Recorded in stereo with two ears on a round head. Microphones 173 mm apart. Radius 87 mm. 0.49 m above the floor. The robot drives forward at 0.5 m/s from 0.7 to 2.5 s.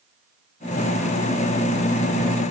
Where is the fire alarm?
No fire alarm in this recording.